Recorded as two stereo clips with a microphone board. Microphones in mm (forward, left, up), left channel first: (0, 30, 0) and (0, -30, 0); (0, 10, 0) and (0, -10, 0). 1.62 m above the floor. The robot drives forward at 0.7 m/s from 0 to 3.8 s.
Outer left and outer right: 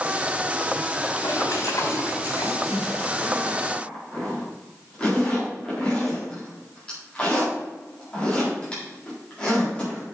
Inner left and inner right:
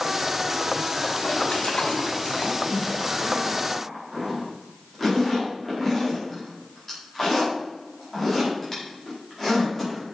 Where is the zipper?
20° left (ahead or behind), 3.5 m; by 10.0 s 15° left (ahead or behind), 4 m.